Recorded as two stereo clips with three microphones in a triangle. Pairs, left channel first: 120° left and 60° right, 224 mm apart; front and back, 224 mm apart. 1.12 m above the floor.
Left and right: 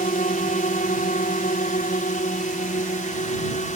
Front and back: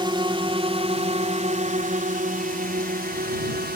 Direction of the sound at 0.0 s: 125° left.